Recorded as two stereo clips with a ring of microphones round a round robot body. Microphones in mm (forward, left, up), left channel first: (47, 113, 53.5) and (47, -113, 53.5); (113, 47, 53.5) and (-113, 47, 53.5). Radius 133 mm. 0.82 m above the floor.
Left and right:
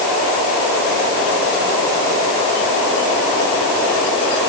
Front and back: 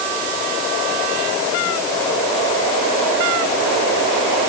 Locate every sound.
Only background noise.